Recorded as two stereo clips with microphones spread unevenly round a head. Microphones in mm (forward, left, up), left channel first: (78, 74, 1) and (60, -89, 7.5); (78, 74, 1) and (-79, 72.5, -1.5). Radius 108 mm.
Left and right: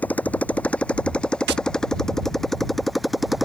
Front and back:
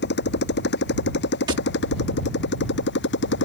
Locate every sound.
0.0 s a motorcycle: straight ahead; by 3.5 s 10° right
1.5 s tapping: 110° right